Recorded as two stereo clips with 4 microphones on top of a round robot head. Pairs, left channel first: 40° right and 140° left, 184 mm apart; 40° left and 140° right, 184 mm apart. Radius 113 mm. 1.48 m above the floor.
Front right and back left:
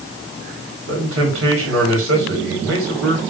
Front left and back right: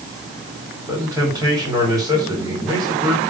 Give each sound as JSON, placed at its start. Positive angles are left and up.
{"t": 0.9, "sound": "a man speaking", "azimuth_deg": 145, "distance_m": 4.5}